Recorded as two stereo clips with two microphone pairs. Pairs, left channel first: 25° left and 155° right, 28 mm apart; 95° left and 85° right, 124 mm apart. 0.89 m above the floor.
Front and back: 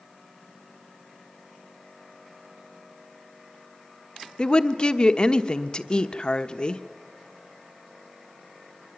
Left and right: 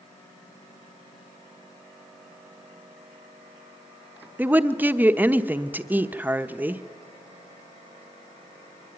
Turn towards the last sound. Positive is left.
turn(degrees=-15)